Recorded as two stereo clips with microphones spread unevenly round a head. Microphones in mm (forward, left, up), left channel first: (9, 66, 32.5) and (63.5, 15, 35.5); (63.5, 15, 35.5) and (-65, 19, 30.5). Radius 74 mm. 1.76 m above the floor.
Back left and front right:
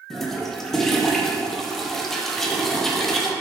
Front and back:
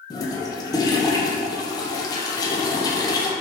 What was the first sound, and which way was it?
A toilet flushing, 50° left.